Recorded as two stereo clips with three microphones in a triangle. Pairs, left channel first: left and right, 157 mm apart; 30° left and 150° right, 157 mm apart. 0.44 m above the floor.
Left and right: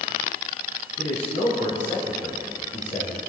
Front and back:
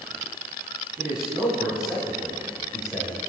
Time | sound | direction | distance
1.0 | a man speaking | 125° left | 2.5 m